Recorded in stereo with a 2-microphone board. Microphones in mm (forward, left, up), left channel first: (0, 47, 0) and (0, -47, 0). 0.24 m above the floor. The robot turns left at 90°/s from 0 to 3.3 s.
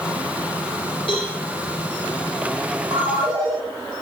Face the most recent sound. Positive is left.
turn(degrees=-120)